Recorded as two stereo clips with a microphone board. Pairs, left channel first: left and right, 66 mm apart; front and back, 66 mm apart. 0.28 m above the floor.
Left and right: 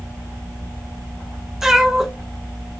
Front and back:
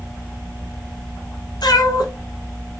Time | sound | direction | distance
1.6 | a cat meowing | 5° right | 0.6 m